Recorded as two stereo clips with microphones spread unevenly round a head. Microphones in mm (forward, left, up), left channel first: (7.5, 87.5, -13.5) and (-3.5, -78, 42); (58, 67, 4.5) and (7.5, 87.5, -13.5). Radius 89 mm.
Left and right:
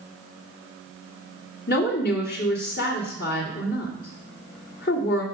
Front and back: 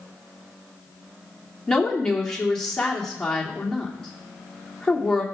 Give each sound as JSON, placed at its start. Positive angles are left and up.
{"t": 1.7, "sound": "a woman speaking", "azimuth_deg": 55, "distance_m": 2.5}